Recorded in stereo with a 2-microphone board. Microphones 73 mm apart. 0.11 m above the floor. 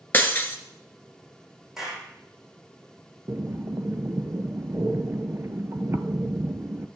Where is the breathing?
40° right (ahead or behind), 0.6 m.